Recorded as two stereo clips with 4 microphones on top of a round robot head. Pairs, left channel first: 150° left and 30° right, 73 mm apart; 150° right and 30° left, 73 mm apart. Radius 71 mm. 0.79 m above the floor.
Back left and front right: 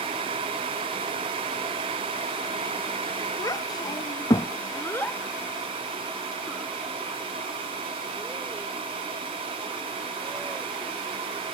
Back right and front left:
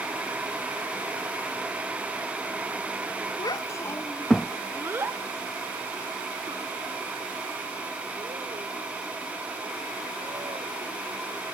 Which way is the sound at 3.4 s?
170° right.